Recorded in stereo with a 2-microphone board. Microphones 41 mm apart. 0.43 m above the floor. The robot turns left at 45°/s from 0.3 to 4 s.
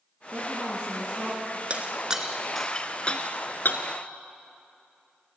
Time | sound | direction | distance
0.3 | a woman speaking | 130° right | 4.5 m
1.7 | breaking glass | 35° right (ahead or behind) | 2 m